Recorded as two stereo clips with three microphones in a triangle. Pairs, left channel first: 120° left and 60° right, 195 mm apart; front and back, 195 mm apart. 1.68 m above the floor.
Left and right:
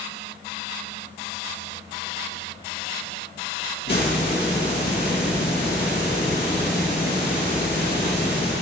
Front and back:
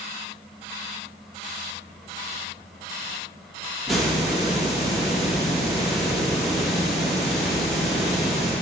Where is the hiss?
90° left, 1.9 m.